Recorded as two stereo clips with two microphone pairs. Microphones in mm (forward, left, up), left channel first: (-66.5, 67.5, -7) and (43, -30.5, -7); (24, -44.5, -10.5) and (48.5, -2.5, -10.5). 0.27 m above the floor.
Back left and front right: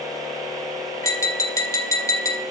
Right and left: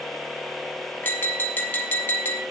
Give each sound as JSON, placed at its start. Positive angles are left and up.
{"t": 1.0, "sound": "tapping", "azimuth_deg": -160, "distance_m": 1.1}